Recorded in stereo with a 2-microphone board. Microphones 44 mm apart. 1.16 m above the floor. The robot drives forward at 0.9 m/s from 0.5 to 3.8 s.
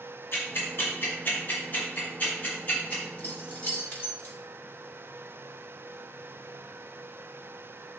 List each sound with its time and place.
0.3 s ticking: 60° left (ahead or behind), 2.5 m; by 3.0 s 35° left (ahead or behind), 4 m
3.2 s keys jangling: 40° left (ahead or behind), 1.9 m; by 4.3 s 30° left (ahead or behind), 2.5 m